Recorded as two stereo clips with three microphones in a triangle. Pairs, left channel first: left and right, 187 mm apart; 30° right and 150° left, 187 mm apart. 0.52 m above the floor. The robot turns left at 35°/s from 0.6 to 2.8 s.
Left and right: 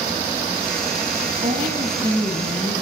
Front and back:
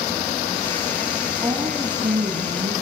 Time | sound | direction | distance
1.4 | a woman speaking | 130° right | 5 m